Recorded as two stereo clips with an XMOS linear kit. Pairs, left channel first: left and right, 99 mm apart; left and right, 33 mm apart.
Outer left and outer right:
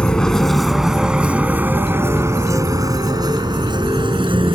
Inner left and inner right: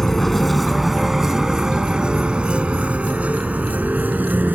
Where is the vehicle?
10° left (ahead or behind); by 4.5 s 55° right (ahead or behind).